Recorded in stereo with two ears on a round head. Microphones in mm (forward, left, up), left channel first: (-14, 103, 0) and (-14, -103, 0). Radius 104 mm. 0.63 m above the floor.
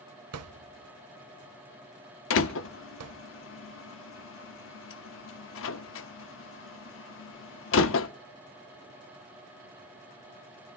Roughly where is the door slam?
Left.